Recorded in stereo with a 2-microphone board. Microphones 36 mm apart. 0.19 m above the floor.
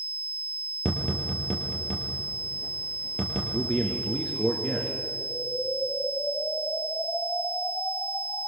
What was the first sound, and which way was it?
Tapping, 20° left (ahead or behind).